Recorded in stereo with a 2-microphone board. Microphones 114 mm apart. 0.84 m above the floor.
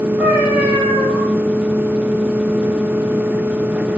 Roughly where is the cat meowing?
Centre.